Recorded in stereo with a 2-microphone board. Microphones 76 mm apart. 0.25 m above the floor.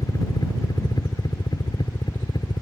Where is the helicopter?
55° left (ahead or behind); by 2.6 s 75° left (ahead or behind).